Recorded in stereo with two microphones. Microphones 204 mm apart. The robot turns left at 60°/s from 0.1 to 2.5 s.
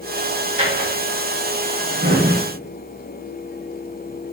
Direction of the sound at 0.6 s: 40° right (ahead or behind).